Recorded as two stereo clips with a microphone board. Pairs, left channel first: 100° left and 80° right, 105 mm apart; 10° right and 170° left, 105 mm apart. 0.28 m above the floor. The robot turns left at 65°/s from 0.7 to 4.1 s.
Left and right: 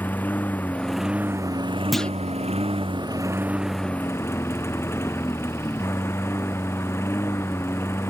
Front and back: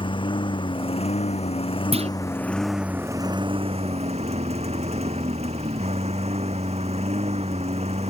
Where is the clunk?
170° right; by 2.1 s straight behind.